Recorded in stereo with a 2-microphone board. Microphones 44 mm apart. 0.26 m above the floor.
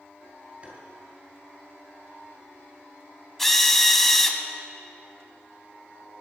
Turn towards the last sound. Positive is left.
turn(degrees=5)  # may be behind; listen again after turning